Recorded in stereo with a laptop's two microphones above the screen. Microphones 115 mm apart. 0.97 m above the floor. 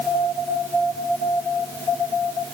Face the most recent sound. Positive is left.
No sound to turn to.